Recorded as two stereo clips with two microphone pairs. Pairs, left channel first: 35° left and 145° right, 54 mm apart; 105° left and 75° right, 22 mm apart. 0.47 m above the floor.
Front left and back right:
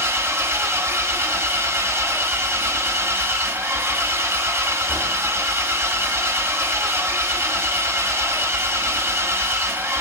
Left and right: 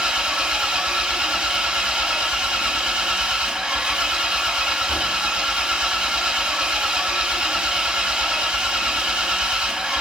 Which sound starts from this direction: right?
An engine running, at 0.0 s.